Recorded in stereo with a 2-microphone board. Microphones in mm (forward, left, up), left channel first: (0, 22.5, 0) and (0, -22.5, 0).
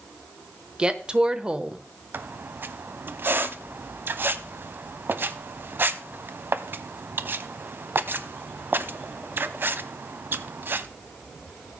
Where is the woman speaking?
20° right (ahead or behind), 0.9 m.